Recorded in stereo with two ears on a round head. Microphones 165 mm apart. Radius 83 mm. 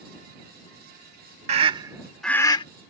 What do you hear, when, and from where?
1.5 s a scream: 35° right (ahead or behind); by 2.6 s 30° left (ahead or behind)